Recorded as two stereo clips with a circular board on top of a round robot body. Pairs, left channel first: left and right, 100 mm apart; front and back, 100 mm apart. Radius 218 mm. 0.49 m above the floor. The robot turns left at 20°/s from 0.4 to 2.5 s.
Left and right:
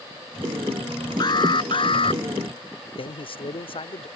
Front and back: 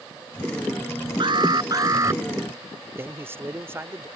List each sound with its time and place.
1.2 s an alarm: 135° left; by 2.2 s 115° left
3.0 s a man speaking: 115° left